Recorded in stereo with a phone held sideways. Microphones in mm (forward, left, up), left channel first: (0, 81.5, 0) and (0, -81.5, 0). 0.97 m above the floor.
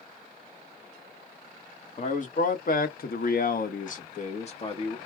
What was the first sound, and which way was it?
A man speaking, 50° left (ahead or behind).